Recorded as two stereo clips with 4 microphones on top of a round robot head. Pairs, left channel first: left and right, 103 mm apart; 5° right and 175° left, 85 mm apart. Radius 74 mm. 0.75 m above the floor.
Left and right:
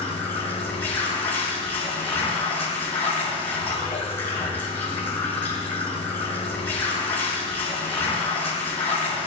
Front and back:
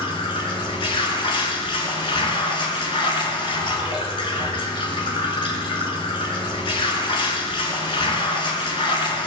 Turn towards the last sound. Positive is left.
turn(degrees=15)